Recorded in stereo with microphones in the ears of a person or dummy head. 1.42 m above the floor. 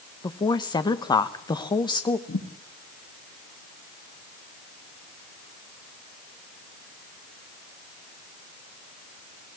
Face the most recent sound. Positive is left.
turn(degrees=75)  # may be behind; listen again after turning